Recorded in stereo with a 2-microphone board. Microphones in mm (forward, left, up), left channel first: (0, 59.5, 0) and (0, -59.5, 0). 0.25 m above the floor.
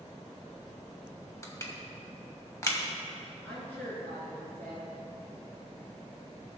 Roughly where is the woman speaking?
Centre.